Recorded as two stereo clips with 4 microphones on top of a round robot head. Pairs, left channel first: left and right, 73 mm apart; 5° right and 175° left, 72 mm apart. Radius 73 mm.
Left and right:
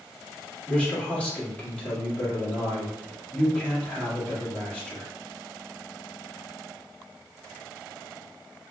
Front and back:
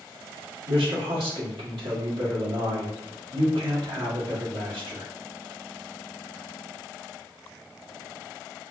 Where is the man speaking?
165° left, 1.3 m.